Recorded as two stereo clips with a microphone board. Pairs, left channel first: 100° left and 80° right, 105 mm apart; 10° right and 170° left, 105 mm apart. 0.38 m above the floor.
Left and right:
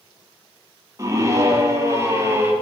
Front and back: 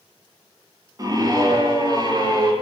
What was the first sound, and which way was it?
A scream, 140° right.